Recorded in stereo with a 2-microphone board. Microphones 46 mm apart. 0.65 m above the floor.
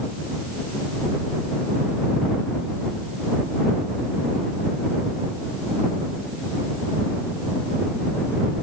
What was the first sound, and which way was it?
Only background noise.